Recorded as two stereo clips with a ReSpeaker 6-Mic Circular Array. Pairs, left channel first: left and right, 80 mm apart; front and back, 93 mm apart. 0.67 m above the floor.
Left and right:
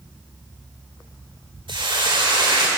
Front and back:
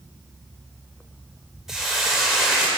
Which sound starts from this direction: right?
A hiss, at 1.7 s.